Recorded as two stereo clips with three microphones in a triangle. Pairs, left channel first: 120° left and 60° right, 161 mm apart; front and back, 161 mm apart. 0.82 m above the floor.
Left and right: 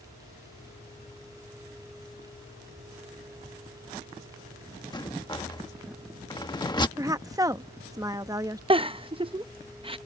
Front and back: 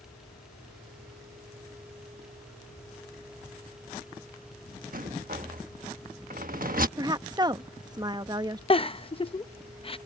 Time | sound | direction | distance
4.9 | a rattle | straight behind | ?
7.0 | a woman speaking | 120° right | ?
8.7 | a giggle | 30° right | ?